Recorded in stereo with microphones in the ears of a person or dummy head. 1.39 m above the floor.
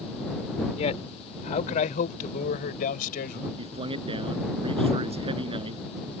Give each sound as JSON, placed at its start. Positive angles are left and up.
{"t": 0.8, "sound": "a man speaking", "side_deg": 35}
{"t": 3.6, "sound": "a man speaking", "side_deg": -30}